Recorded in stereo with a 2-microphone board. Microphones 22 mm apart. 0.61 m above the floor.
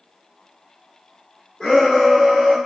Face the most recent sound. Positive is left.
turn(degrees=0)  # may be behind; listen again after turning